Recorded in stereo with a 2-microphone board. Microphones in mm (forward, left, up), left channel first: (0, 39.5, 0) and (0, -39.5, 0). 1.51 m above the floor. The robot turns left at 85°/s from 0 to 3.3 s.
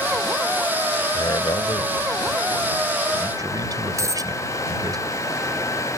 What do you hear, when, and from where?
1.1 s a man speaking: 55° left (ahead or behind); by 5.0 s 60° right (ahead or behind)
4.0 s a dropped coin: 45° right (ahead or behind)